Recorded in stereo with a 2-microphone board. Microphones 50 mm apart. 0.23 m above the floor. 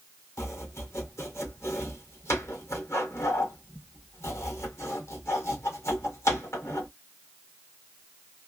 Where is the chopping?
65° left (ahead or behind), 2.5 m.